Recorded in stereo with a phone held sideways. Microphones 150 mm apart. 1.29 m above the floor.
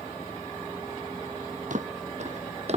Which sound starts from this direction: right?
Footsteps, at 1.7 s.